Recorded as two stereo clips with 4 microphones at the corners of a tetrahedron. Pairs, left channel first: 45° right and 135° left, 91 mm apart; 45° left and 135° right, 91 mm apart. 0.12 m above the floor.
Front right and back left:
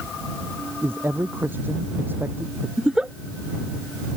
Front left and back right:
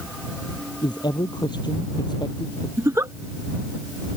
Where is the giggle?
150° right.